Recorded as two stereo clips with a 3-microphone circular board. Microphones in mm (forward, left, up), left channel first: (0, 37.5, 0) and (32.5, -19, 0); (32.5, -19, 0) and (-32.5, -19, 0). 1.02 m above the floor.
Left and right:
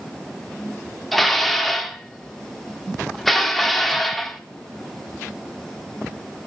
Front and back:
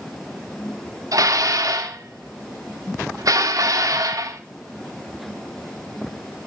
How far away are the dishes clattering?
About 1.6 m.